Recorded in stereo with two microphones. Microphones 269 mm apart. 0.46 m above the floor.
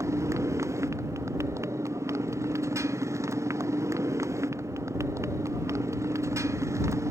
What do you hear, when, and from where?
0.0 s a motorcycle: 10° right (ahead or behind)